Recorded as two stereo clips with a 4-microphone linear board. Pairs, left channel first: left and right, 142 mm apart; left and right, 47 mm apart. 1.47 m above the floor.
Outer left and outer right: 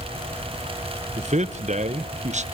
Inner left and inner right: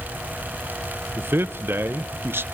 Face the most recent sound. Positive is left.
turn(degrees=-55)  # may be behind; listen again after turning